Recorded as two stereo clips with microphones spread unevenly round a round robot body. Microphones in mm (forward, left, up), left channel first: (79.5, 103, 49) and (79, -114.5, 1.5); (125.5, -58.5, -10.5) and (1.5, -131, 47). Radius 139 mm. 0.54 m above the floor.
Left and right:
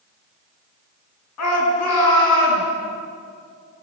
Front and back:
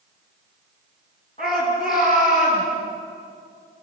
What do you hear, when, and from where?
1.4 s a shout: 95° left, 7 m; by 2.6 s 100° left, 9 m